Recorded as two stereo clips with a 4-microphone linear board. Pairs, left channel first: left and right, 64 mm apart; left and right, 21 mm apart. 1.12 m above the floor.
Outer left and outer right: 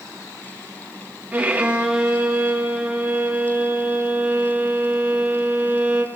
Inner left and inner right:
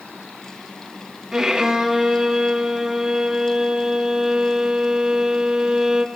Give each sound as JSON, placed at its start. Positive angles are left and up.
{"t": 1.3, "sound": "a violin", "side_deg": -25, "distance_m": 1.5}